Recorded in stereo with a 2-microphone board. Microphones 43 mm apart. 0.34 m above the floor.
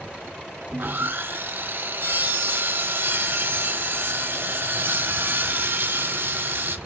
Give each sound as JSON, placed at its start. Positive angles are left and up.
{"t": 0.7, "sound": "sawing", "side_deg": -50, "distance_m": 0.5}